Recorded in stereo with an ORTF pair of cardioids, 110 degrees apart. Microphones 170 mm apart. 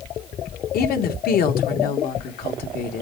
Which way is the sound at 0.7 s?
65° left.